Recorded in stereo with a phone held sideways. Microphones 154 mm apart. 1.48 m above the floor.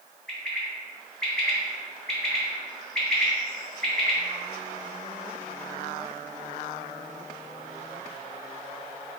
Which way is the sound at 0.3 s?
Centre (ahead or behind).